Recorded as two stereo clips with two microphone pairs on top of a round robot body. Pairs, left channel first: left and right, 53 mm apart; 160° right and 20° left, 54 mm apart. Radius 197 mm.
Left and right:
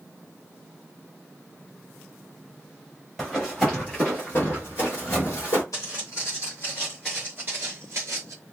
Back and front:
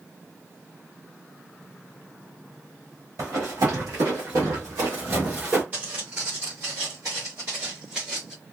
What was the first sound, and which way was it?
Running footsteps, 5° left.